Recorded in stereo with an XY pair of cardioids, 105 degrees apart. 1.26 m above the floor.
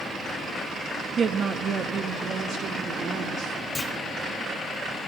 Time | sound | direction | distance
1.2 | a woman speaking | 50° right | 0.8 m
3.8 | a clunk | 20° left | 1.5 m